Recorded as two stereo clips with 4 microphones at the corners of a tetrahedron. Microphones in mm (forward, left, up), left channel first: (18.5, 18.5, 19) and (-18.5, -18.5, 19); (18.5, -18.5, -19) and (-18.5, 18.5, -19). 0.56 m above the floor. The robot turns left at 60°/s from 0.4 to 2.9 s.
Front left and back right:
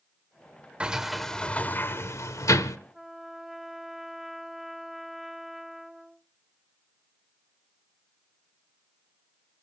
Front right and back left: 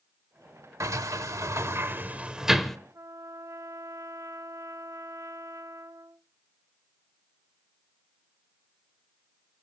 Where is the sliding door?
155° left, 1.0 m; by 2.8 s 40° left, 1.0 m.